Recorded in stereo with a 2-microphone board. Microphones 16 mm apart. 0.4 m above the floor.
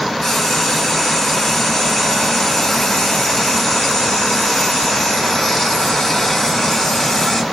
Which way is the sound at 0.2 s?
35° left (ahead or behind).